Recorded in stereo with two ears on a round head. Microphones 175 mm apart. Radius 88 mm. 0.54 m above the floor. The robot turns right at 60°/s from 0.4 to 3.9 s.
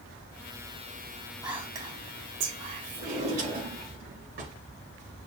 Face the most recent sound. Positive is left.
turn(degrees=-110)